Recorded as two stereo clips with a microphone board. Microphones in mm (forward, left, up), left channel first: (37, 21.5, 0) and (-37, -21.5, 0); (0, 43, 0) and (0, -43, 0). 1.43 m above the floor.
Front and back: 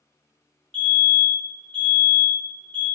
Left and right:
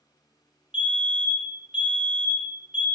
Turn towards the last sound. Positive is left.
turn(degrees=-40)